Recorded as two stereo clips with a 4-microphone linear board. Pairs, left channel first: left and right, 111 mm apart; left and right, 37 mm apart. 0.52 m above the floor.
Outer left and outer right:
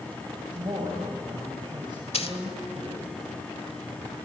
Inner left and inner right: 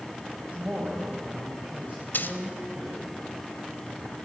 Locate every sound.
0.5 s a man speaking: 45° right (ahead or behind), 3.5 m
2.1 s a dropped coin: 65° left (ahead or behind), 1.3 m